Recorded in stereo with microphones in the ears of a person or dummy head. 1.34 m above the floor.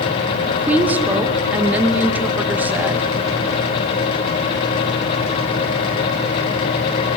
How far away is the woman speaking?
About 1.4 m.